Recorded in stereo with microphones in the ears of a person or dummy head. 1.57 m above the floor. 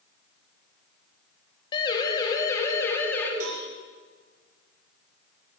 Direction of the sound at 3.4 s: 85° right.